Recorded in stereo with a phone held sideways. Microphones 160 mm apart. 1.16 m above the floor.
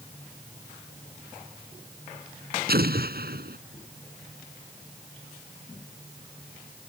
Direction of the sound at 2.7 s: 75° right (ahead or behind).